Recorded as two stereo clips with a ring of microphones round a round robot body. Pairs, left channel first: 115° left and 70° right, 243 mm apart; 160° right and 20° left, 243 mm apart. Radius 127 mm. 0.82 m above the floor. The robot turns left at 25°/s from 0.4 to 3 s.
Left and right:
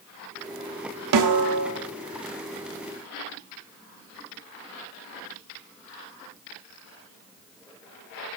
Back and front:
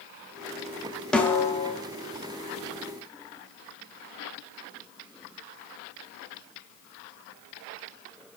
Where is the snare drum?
70° right, 1.1 m; by 1.7 s 85° right, 1.1 m.